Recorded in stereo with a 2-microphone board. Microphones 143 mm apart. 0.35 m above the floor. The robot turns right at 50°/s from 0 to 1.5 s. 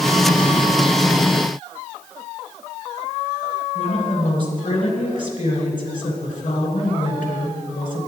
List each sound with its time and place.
3.8 s a woman speaking: 70° left (ahead or behind), 3.5 m